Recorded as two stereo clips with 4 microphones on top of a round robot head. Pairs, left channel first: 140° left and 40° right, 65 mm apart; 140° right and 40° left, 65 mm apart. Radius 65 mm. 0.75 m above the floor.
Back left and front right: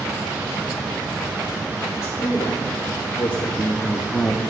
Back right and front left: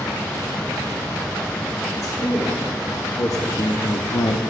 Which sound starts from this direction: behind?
A man speaking, at 1.9 s.